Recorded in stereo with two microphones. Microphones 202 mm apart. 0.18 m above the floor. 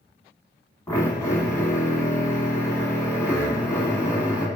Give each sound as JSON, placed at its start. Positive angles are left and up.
{"t": 0.9, "sound": "a drill", "side_deg": 10, "distance_m": 1.2}